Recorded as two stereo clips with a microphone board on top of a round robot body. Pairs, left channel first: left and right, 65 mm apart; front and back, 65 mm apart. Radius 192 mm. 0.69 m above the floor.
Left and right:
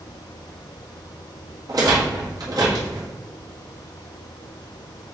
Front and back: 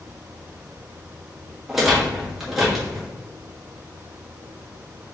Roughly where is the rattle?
Right.